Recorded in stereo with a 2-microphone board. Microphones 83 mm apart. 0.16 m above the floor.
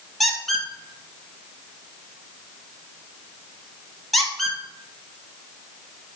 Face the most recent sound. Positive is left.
turn(degrees=5)  # may be behind; listen again after turning